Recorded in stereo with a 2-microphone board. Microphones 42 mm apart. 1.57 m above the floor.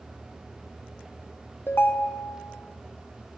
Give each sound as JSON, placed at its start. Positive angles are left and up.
{"t": 1.7, "sound": "a ringtone", "side_deg": 55, "distance_m": 0.7}